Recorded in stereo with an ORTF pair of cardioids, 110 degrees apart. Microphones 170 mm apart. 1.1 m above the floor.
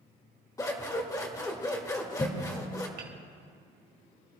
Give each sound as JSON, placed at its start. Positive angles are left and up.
{"t": 0.6, "sound": "scissors", "azimuth_deg": 20, "distance_m": 1.8}
{"t": 3.0, "sound": "hammering", "azimuth_deg": -70, "distance_m": 2.0}